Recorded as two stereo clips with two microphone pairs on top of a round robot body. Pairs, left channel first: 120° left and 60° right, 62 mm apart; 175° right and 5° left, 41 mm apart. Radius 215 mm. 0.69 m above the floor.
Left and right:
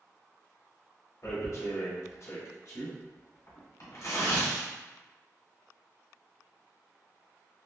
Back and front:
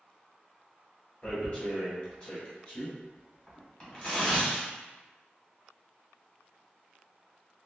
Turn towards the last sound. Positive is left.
turn(degrees=125)